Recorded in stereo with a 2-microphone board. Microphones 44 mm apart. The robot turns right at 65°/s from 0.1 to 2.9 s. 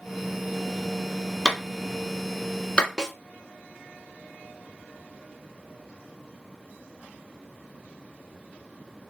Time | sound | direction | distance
1.4 | a clap | 15° right (ahead or behind) | 1.0 m
3.0 | a snare drum | 15° right (ahead or behind) | 0.7 m